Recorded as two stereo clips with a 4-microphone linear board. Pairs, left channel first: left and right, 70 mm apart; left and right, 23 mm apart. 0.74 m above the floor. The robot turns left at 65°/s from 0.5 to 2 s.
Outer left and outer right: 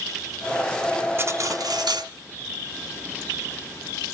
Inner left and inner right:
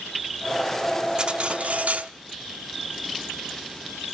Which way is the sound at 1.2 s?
40° right.